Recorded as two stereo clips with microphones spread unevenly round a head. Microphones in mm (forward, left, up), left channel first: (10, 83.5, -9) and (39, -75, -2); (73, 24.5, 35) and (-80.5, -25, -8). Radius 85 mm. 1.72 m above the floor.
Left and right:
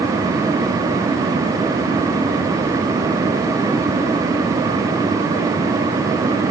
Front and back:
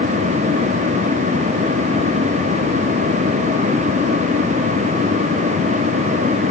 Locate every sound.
Only background noise.